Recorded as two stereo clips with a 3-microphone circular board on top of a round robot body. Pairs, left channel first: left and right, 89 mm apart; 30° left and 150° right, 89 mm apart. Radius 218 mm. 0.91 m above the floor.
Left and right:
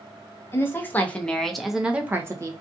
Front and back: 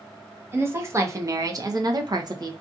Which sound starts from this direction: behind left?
A woman speaking, at 0.5 s.